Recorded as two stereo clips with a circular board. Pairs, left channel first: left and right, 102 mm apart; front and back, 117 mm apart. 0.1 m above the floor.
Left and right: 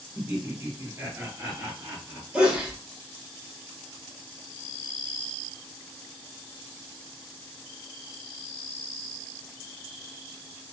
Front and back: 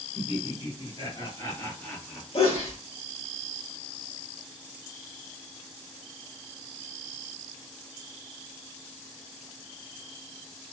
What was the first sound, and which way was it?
Laughter, 25° right.